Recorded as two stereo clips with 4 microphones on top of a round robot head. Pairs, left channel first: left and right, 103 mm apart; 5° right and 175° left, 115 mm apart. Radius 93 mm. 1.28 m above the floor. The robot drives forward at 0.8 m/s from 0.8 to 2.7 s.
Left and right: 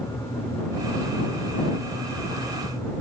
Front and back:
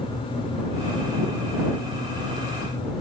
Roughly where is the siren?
No siren in this recording.